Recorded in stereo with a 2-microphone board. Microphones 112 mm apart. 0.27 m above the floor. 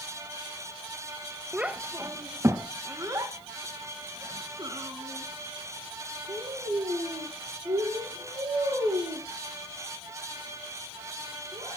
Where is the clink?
I don't hear a clink.